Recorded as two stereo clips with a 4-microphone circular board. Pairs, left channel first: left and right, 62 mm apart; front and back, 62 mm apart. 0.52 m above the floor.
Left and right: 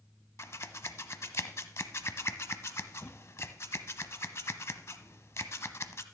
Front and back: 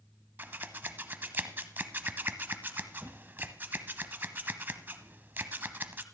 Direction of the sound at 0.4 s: 125° left.